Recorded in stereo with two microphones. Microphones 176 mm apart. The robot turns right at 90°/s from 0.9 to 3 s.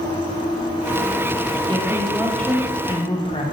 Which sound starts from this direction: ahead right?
A woman speaking, at 1.7 s.